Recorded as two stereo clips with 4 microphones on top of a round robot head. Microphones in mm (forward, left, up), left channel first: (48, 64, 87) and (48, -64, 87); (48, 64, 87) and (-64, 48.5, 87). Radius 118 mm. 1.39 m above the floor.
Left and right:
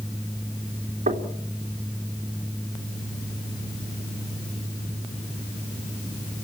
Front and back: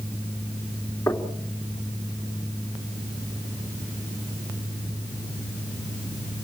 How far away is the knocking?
About 3 m.